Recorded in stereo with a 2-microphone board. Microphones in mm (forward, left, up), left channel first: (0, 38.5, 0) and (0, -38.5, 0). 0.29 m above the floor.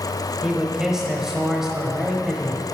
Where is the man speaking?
5° right (ahead or behind), 1.0 m.